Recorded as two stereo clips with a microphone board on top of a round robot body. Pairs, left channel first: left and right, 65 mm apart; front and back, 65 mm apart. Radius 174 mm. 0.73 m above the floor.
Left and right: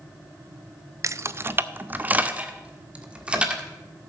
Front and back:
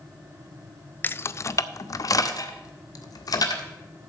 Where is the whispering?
I don't hear whispering.